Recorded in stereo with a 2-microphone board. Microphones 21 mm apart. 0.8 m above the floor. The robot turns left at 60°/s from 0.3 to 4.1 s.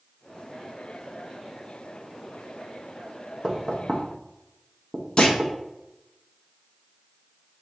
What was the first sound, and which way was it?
Knocking, 25° right (ahead or behind).